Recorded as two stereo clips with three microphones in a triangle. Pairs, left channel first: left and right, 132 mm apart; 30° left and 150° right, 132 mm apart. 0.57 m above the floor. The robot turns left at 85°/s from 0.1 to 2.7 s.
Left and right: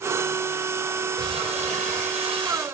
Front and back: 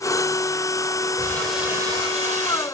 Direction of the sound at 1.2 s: 30° right.